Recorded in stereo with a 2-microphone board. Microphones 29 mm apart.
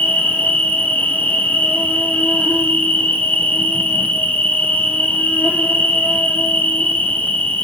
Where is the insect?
75° left (ahead or behind), 2.0 m.